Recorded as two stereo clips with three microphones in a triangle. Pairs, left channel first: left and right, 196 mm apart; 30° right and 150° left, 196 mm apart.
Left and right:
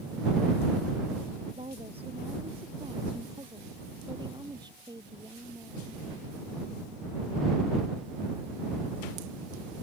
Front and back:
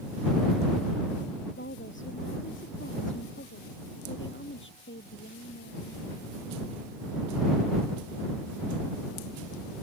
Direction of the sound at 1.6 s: 30° right.